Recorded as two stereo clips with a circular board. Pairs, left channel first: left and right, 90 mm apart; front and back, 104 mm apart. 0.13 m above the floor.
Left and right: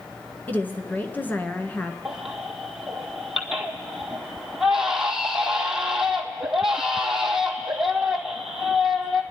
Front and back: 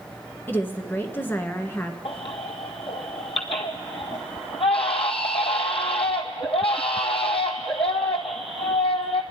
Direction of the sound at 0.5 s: 45° left.